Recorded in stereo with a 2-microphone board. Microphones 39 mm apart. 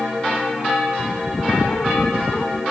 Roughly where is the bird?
Centre.